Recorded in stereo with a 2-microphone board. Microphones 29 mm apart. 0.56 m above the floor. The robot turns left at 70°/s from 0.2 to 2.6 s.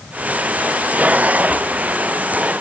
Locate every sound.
Only background noise.